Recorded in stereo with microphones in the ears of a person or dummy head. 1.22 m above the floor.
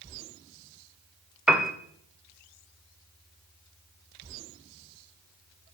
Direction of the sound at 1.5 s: 5° right (ahead or behind).